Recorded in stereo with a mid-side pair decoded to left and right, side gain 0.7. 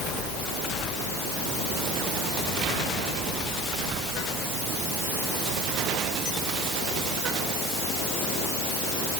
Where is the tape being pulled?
No tape being pulled in this recording.